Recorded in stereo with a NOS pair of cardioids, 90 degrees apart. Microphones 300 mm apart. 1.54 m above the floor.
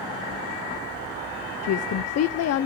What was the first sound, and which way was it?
A woman speaking, 60° left.